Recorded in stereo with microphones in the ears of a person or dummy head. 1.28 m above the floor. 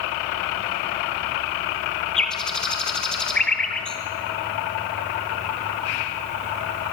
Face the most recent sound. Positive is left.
turn(degrees=5)  # may be behind; listen again after turning